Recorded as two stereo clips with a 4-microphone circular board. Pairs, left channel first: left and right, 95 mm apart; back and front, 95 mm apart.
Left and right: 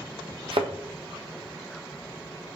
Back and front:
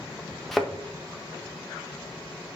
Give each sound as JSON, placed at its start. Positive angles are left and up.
{"t": 0.5, "sound": "a thud", "azimuth_deg": -95, "distance_m": 1.4}